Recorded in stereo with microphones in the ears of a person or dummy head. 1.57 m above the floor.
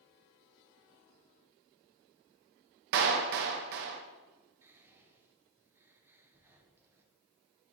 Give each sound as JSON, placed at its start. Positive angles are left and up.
{"t": 2.9, "sound": "a clap", "side_deg": -55, "distance_m": 0.8}
{"t": 4.6, "sound": "whispering", "side_deg": -15, "distance_m": 1.3}